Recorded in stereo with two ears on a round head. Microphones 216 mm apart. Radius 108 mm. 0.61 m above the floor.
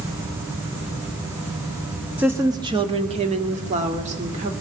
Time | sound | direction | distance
2.2 | a woman speaking | 10° right (ahead or behind) | 1.0 m